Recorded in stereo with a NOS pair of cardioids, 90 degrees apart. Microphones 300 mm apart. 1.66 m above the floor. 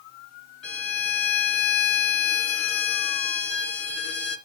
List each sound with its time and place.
0.6 s a violin: 55° left, 3.5 m